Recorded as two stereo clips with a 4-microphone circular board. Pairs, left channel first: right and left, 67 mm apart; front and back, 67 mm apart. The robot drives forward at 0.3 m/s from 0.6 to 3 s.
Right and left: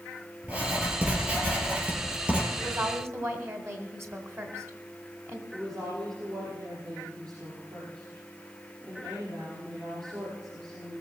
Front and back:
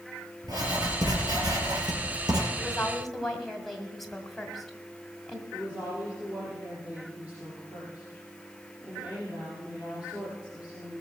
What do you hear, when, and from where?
0.4 s writing: 160° left, 4 m
2.6 s a woman speaking: 80° left, 1.9 m; by 5.4 s 85° left, 1.9 m
5.5 s a woman speaking: 105° left, 6.5 m